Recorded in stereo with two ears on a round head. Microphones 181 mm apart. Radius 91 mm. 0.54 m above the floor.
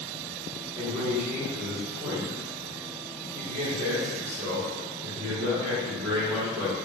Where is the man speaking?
25° right (ahead or behind), 1.7 m.